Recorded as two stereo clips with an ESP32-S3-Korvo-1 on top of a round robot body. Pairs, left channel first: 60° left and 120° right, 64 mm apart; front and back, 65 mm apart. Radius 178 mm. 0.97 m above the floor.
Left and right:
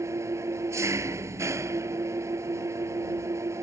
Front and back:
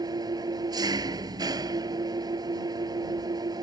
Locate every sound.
0.0 s an engine running: 165° right